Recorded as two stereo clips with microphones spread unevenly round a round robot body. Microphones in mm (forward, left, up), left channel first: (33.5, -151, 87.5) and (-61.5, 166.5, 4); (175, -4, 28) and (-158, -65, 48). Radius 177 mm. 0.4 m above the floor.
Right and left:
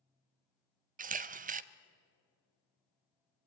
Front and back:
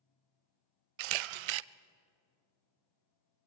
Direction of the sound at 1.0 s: 175° left.